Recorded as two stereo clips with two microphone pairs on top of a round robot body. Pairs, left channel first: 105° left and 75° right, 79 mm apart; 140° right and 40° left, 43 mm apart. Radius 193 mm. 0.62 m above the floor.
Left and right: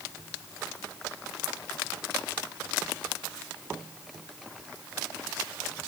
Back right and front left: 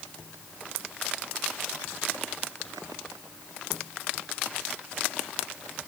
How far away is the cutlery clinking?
No cutlery clinking in this recording.